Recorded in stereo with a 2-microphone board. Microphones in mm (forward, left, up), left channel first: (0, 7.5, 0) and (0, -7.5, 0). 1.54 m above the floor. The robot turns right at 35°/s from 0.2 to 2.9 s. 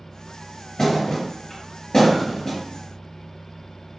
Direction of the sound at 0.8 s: 35° left (ahead or behind).